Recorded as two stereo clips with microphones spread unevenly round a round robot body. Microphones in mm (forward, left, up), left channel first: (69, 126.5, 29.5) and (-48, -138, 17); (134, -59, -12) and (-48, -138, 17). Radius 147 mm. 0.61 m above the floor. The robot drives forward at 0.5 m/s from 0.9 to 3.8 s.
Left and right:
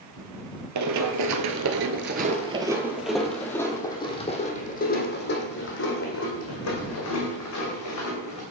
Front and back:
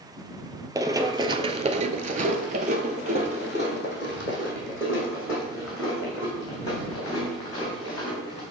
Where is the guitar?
No guitar in this recording.